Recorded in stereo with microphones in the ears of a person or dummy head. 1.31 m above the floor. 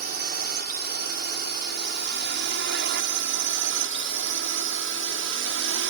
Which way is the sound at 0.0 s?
50° right (ahead or behind).